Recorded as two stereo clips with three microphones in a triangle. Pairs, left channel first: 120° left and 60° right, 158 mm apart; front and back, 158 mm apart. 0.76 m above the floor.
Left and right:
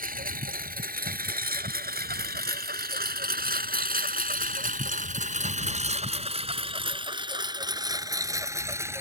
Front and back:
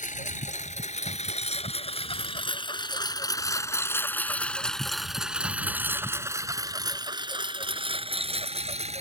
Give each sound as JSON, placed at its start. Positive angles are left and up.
{"t": 0.0, "sound": "a lawn mower", "azimuth_deg": -35}